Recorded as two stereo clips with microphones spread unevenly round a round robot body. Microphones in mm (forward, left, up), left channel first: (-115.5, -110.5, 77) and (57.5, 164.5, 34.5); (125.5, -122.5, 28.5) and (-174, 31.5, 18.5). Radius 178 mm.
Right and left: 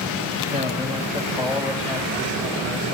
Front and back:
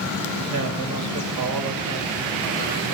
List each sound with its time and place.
0.5 s a man speaking: 115° left, 1.9 m; by 2.9 s 160° left, 2 m